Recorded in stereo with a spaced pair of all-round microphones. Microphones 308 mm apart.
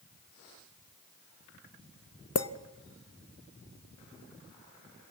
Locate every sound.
2.4 s a clink: 50° left (ahead or behind), 0.7 m